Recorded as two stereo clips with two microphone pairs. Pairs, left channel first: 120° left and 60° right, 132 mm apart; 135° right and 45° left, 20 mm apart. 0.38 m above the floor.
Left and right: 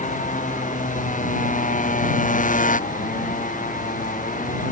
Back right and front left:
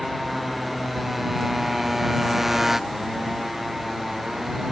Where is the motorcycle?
135° left; by 4.7 s 125° left.